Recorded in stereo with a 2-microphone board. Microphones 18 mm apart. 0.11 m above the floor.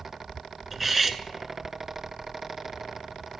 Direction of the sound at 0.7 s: 10° right (ahead or behind).